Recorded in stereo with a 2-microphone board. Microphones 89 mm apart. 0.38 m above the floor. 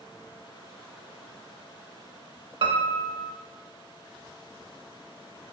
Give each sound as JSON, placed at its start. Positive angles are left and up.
{"t": 2.6, "sound": "a piano", "side_deg": -75, "distance_m": 0.5}